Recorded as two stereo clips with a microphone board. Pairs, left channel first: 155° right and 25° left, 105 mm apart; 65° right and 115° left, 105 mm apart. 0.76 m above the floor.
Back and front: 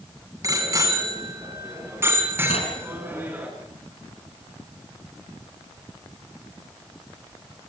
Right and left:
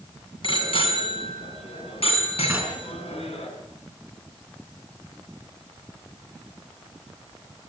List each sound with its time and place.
0.4 s a bicycle bell: 35° right, 5 m; by 3.5 s 50° right, 5.5 m
2.5 s knocking: 170° right, 5 m